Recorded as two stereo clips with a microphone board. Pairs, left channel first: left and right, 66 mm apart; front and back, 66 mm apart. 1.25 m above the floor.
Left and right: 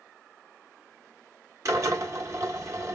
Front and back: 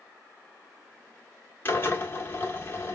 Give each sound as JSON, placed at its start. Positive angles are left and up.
{"t": 1.6, "sound": "a drill", "azimuth_deg": -55, "distance_m": 1.3}